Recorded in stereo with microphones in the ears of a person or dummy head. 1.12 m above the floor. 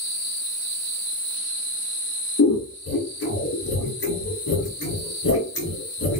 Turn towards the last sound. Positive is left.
turn(degrees=70)  # may be behind; listen again after turning